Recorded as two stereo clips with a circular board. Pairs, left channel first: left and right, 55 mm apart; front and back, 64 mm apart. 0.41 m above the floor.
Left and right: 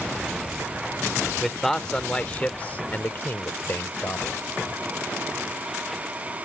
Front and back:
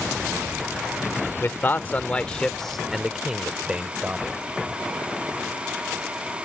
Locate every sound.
1.4 s a man speaking: 5° left; by 4.4 s 120° left